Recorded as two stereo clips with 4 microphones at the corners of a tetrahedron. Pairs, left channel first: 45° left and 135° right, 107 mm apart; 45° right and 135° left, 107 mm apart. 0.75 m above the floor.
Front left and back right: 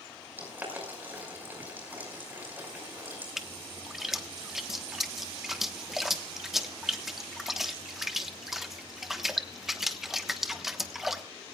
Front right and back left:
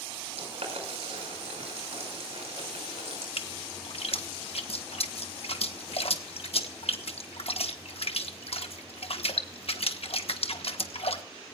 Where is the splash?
50° right, 1.2 m.